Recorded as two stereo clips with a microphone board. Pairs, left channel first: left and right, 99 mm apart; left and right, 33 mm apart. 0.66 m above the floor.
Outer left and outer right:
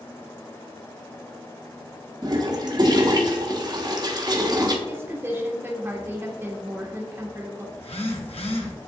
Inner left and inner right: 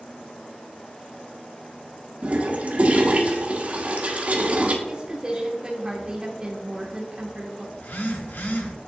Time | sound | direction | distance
2.2 | a toilet flushing | 45° right (ahead or behind) | 1.0 m
4.9 | a woman speaking | 25° right (ahead or behind) | 1.1 m
7.8 | a phone buzzing | 80° left | 1.2 m